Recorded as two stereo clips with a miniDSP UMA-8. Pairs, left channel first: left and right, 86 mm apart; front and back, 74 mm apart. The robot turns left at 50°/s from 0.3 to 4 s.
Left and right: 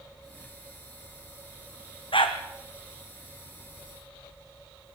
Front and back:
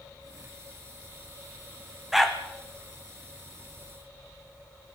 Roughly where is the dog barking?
Left.